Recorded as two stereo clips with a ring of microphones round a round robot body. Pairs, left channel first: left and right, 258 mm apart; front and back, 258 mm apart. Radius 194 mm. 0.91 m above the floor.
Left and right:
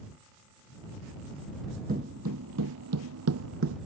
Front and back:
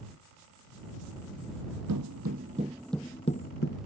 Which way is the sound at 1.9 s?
155° right.